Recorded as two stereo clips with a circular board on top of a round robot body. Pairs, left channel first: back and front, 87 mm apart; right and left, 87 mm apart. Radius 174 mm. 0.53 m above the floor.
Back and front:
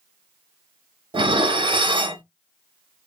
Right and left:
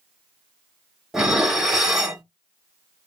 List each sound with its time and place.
1.1 s dishes clattering: 5° left, 1.0 m